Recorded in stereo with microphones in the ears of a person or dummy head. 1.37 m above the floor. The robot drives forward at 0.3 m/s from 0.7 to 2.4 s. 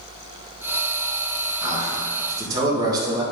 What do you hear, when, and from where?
1.6 s a man speaking: 20° right (ahead or behind), 2 m